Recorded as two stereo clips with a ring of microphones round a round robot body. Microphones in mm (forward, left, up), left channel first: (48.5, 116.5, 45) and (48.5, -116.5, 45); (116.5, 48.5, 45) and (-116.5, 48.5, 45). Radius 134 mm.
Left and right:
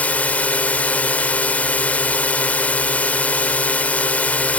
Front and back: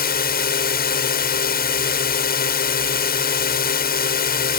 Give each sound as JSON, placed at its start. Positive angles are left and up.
{"t": 0.0, "sound": "a drone", "azimuth_deg": 10}